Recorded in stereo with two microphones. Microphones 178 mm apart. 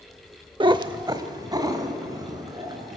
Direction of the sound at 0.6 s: 25° right (ahead or behind).